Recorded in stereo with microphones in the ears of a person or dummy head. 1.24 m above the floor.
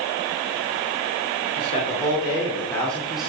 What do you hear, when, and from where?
1.6 s a man speaking: 45° left (ahead or behind), 3 m; by 3.3 s 5° right (ahead or behind), 2.5 m